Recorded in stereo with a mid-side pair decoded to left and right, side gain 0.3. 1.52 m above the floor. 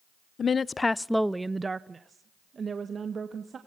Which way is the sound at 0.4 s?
60° left.